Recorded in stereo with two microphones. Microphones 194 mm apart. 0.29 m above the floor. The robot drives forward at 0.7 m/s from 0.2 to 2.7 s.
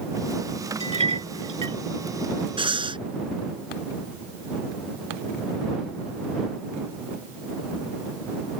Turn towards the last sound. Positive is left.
turn(degrees=-25)  # may be behind; listen again after turning